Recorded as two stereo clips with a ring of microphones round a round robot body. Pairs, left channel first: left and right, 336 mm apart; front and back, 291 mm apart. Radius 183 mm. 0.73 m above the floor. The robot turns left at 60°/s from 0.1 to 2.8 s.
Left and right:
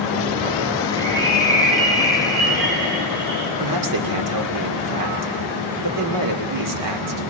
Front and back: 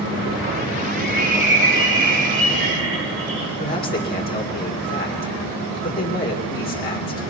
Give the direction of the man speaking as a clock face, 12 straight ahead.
2 o'clock.